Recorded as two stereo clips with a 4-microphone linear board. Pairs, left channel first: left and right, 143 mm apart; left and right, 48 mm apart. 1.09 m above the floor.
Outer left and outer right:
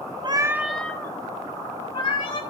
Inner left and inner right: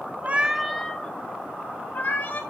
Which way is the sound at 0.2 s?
35° right (ahead or behind).